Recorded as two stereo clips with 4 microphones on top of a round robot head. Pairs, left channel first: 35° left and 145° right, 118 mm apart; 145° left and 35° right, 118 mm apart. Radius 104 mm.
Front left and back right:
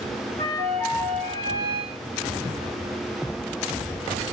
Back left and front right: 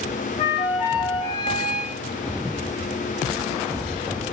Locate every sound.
0.4 s a flute: 175° right, 1.7 m